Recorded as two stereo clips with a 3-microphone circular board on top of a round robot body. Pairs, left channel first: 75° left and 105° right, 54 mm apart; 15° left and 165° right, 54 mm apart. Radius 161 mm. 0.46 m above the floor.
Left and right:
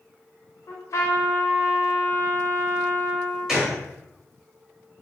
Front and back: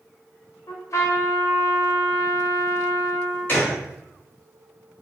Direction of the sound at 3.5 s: 25° right.